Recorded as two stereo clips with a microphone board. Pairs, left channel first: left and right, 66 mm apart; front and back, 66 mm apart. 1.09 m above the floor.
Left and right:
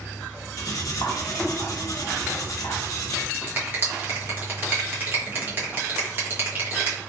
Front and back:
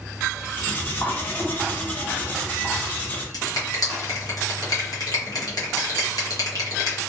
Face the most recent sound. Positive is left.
turn(degrees=-30)